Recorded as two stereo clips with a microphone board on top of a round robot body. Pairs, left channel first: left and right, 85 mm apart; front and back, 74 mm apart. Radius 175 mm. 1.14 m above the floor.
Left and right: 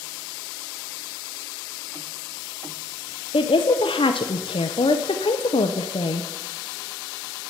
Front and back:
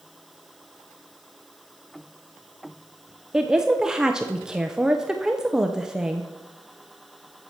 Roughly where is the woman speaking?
Left.